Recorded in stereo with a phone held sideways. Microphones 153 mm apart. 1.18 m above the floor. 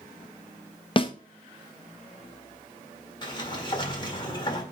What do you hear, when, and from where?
1.0 s a snare drum: 35° left (ahead or behind), 0.8 m
3.2 s a sliding door: 30° left (ahead or behind), 1.8 m